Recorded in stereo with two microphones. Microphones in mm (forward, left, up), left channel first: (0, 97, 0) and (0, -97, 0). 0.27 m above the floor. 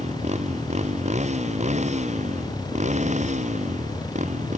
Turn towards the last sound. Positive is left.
turn(degrees=-40)  # may be behind; listen again after turning